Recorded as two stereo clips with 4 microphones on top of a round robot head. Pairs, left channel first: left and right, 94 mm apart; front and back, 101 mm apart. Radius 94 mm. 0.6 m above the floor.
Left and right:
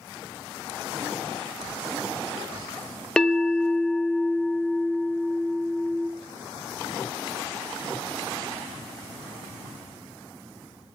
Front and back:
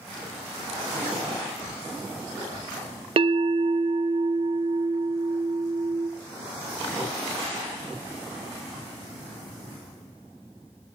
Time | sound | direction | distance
3.2 | a bell | 170° left | 0.6 m